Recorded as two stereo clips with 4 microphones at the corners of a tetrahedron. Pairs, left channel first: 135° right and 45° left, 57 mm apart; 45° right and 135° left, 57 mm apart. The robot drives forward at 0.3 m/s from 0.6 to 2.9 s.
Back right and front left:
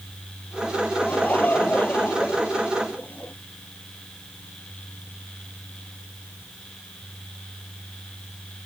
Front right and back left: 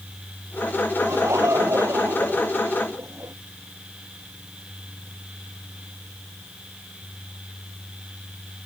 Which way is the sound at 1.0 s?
165° left.